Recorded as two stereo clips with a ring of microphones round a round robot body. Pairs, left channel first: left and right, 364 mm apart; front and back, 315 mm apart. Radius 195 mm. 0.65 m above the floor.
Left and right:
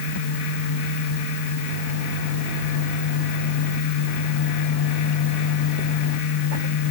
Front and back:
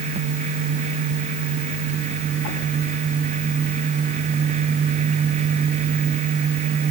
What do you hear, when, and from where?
Only background noise.